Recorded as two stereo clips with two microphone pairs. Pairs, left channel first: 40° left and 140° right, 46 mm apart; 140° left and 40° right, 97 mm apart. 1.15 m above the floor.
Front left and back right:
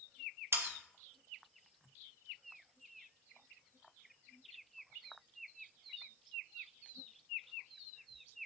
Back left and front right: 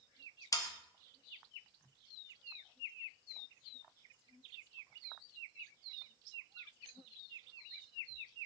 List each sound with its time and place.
0.5 s sawing: 165° right, 0.9 m